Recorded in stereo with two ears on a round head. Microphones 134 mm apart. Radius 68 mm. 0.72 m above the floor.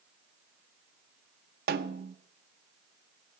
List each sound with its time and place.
1.7 s a snare drum: 70° right (ahead or behind), 0.6 m